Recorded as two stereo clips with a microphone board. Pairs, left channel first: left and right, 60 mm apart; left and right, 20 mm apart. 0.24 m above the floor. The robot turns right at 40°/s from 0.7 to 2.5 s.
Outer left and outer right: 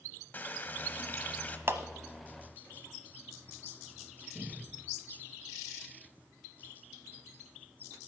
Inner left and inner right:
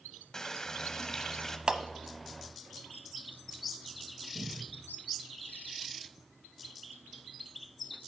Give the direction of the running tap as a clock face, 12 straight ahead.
9 o'clock.